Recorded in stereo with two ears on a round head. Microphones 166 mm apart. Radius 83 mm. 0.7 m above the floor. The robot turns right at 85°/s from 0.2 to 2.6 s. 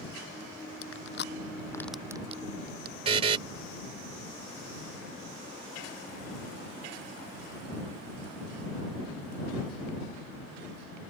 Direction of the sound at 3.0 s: 30° right (ahead or behind).